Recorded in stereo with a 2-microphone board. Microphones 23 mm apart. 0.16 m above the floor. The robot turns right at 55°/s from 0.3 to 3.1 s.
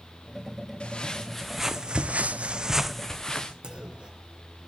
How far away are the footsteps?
About 1.6 m.